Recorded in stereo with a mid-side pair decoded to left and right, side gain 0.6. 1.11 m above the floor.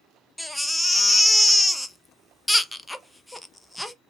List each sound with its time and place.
0.4 s a baby crying: 10° left, 0.5 m